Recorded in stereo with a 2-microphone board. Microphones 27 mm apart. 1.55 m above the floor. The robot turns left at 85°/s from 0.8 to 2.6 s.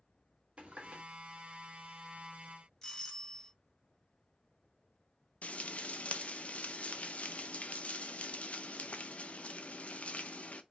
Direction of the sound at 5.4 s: 50° left (ahead or behind).